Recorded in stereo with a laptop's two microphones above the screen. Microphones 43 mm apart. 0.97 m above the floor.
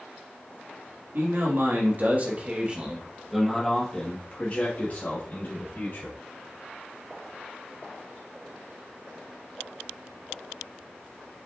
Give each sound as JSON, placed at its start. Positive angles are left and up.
{"t": 1.1, "sound": "a man speaking", "side_deg": -60, "distance_m": 1.5}